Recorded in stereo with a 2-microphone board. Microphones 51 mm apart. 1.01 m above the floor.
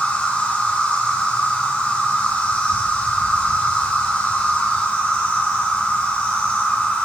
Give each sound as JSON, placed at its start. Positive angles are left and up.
{"t": 0.0, "sound": "an insect", "side_deg": 30, "distance_m": 4.5}